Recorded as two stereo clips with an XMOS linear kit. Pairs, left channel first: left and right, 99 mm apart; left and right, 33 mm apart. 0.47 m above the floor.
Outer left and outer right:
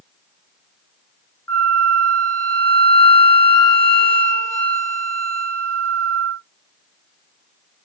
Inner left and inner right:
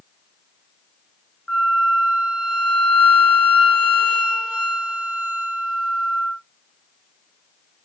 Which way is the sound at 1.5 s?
30° left (ahead or behind).